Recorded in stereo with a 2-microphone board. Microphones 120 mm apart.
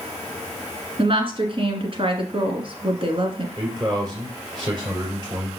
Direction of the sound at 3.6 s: 35° right (ahead or behind).